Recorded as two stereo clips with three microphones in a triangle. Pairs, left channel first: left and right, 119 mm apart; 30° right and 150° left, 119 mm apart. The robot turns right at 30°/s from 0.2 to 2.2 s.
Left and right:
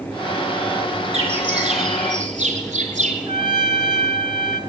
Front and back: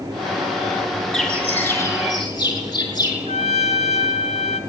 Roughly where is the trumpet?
Ahead right.